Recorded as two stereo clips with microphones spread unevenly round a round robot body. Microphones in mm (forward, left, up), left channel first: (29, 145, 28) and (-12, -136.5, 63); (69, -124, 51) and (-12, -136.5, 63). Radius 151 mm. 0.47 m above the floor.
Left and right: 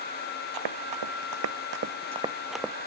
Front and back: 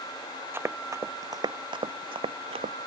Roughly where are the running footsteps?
Right.